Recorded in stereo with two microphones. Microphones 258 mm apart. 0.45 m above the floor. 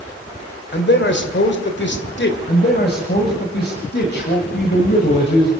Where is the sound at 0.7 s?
45° left (ahead or behind), 2 m.